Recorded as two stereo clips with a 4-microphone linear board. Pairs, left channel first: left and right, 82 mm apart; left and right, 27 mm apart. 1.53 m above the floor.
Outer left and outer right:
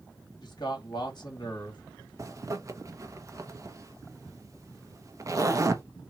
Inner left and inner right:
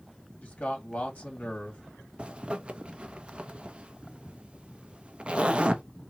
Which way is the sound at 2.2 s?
40° right (ahead or behind).